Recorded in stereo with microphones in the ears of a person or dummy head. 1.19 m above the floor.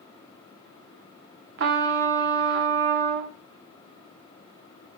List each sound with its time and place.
1.6 s a trumpet: 55° right (ahead or behind), 1.0 m